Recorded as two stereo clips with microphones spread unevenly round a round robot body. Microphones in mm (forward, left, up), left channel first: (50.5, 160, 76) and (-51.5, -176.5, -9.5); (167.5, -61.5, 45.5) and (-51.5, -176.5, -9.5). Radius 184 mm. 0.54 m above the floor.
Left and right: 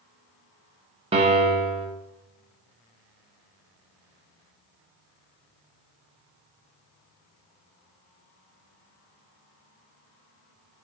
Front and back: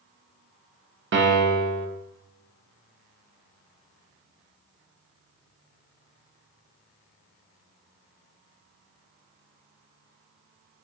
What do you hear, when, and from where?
1.1 s a piano: 170° right, 0.6 m